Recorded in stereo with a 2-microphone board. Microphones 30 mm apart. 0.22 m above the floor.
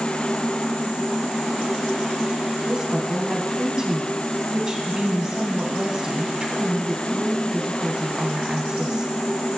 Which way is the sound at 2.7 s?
30° right (ahead or behind).